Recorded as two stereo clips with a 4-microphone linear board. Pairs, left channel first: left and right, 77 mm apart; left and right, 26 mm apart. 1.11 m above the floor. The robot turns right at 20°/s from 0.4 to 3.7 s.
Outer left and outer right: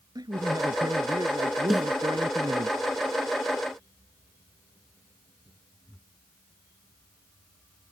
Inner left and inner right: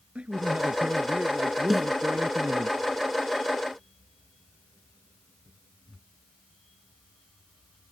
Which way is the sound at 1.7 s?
Centre (ahead or behind).